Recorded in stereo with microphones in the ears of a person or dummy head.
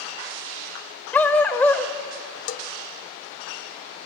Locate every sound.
1.1 s a dog barking: 10° left (ahead or behind), 1.7 m
2.5 s a bell: 50° left (ahead or behind), 0.8 m